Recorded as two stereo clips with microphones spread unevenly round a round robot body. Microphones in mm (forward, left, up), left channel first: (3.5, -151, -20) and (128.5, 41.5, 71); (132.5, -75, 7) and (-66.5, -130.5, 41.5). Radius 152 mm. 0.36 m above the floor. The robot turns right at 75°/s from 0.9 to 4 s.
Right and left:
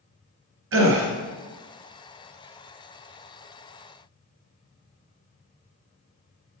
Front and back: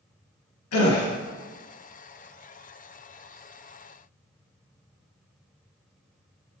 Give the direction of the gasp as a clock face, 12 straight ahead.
11 o'clock.